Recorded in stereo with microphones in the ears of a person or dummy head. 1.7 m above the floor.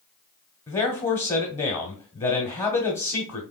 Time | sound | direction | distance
0.7 | a man speaking | 20° left (ahead or behind) | 0.9 m